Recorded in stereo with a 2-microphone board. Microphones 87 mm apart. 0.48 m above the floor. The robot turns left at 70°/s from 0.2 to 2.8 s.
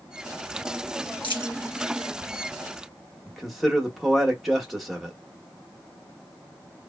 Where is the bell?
I don't hear a bell.